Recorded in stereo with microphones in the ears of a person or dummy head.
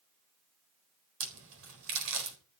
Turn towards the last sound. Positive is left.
turn(degrees=-75)  # may be behind; listen again after turning